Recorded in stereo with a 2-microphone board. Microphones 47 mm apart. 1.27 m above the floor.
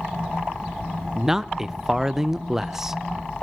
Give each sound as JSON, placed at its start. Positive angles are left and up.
{"t": 1.1, "sound": "a man speaking", "side_deg": -10, "distance_m": 0.7}